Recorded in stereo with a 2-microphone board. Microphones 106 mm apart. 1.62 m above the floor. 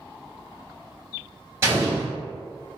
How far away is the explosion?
About 1.5 m.